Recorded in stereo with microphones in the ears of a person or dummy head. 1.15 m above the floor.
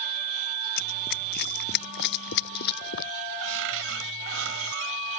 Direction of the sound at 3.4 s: 70° right (ahead or behind).